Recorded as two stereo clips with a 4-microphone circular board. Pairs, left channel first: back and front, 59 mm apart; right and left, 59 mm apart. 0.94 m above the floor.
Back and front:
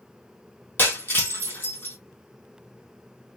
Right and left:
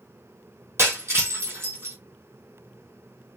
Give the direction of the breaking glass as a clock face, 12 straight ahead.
8 o'clock.